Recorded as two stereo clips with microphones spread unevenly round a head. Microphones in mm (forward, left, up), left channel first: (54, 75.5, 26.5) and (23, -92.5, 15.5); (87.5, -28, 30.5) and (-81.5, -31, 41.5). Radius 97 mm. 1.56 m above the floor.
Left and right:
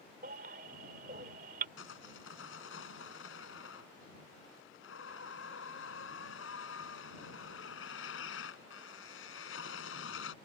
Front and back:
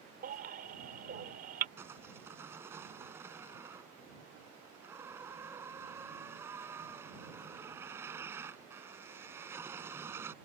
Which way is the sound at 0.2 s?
150° right.